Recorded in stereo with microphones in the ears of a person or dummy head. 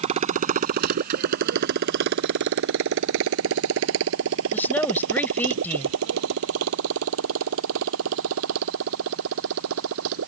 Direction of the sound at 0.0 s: 35° right (ahead or behind).